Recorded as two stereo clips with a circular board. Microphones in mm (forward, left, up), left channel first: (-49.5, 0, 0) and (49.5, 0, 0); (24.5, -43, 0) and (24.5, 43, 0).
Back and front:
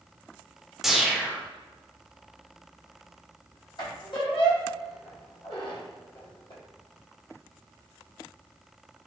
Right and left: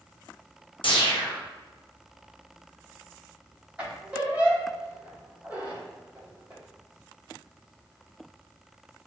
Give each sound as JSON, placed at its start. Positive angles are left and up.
{"t": 0.8, "sound": "a whoosh", "azimuth_deg": -85, "distance_m": 0.5}
{"t": 3.8, "sound": "a squeak", "azimuth_deg": 160, "distance_m": 1.1}